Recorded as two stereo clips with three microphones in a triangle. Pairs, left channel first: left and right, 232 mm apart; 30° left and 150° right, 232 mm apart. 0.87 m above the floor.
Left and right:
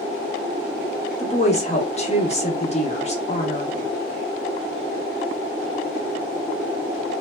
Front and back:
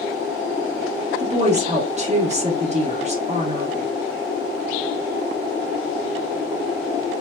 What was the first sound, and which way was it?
A woman speaking, 150° left.